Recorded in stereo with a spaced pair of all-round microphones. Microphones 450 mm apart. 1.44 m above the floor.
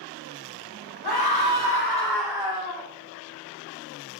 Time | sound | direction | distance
1.0 | a scream | 60° left (ahead or behind) | 1.4 m